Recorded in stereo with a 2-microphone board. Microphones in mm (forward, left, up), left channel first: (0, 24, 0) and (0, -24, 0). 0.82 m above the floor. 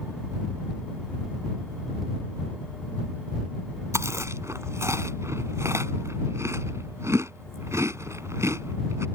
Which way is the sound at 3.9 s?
90° right.